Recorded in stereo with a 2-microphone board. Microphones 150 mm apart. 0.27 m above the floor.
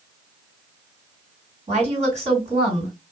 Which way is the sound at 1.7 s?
50° right (ahead or behind).